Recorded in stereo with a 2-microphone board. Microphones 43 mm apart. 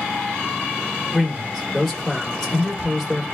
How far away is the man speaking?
About 1.3 m.